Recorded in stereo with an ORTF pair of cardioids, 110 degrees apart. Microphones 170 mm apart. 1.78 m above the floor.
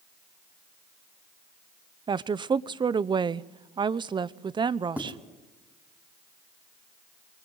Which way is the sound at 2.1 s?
30° right.